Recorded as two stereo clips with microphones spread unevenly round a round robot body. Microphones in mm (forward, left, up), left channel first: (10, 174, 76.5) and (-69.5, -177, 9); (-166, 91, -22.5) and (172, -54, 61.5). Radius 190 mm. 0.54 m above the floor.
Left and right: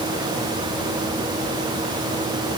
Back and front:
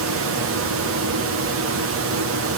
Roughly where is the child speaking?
I don't hear a child speaking.